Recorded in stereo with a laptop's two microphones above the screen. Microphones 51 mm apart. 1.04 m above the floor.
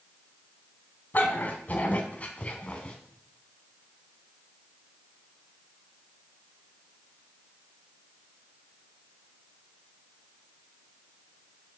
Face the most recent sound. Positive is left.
turn(degrees=20)  # may be behind; listen again after turning